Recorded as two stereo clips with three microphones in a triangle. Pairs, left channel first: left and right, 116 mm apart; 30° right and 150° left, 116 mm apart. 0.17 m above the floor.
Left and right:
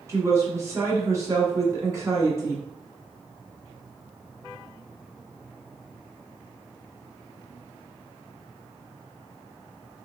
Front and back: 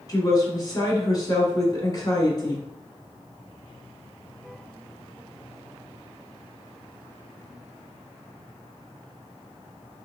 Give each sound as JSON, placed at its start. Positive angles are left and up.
{"t": 0.1, "sound": "a woman speaking", "azimuth_deg": -45, "distance_m": 1.3}